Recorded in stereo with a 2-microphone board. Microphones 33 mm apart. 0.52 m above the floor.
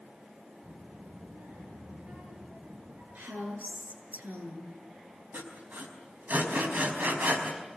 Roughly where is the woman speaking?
Right.